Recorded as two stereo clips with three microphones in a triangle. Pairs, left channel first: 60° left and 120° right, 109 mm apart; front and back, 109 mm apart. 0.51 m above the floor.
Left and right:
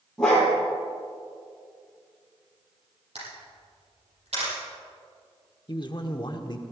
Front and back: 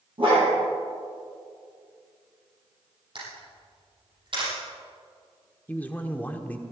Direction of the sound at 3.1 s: 140° right.